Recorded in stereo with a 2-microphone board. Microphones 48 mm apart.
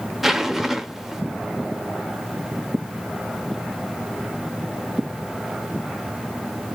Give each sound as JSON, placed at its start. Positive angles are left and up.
{"t": 0.2, "sound": "a zipper", "side_deg": -5, "distance_m": 0.5}